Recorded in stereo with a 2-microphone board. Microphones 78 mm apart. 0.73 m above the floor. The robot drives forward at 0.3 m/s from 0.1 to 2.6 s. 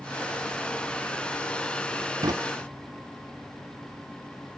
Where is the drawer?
55° right (ahead or behind), 0.6 m; by 2.3 s 50° right (ahead or behind), 0.6 m.